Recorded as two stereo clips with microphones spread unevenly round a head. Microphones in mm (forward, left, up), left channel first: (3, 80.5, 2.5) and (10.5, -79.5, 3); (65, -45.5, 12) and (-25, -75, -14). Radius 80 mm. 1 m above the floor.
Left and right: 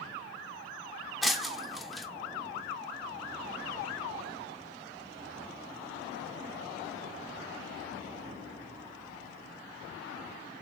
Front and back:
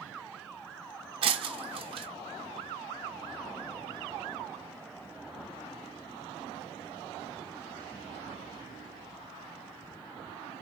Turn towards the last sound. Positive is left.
turn(degrees=-175)